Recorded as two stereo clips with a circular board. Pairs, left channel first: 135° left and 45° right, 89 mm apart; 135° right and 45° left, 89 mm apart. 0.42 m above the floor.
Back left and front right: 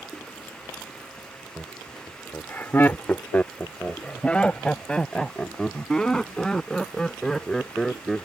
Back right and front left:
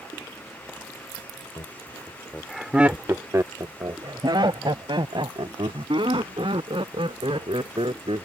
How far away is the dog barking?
No dog barking in this recording.